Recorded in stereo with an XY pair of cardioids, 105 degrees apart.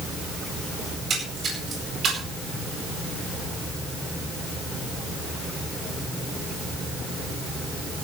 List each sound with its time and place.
0.9 s a splash: 55° right, 8.5 m